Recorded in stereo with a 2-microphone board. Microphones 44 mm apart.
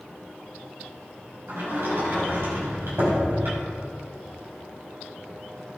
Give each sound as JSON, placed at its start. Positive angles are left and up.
{"t": 1.5, "sound": "a sliding door", "side_deg": -65, "distance_m": 4.5}